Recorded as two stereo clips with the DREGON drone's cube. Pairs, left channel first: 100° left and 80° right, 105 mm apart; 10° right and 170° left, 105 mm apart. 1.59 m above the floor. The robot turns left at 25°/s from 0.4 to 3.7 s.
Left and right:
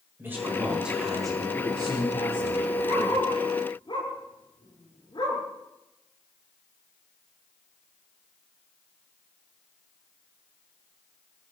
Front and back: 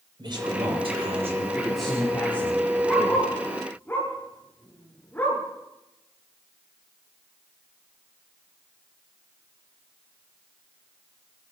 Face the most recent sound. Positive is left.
turn(degrees=60)